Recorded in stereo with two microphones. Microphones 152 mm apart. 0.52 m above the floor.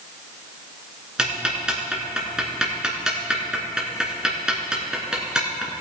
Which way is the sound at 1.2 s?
5° right (ahead or behind).